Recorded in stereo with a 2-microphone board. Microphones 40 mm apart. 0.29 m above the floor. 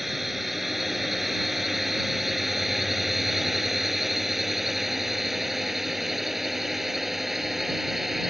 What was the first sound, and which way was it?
A drone, 5° right (ahead or behind).